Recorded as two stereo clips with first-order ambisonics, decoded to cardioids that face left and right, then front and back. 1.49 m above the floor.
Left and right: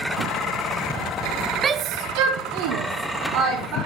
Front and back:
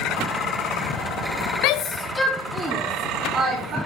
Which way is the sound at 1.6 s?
20° right.